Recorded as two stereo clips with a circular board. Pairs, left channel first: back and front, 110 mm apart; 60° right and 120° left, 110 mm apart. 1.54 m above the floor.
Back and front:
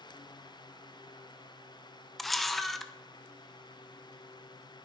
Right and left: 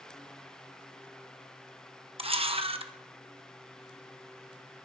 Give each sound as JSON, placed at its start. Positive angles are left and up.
{"t": 2.2, "sound": "a camera shutter", "azimuth_deg": 90, "distance_m": 1.1}